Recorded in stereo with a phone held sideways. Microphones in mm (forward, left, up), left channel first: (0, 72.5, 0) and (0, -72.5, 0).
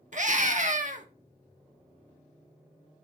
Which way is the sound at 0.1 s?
60° right (ahead or behind).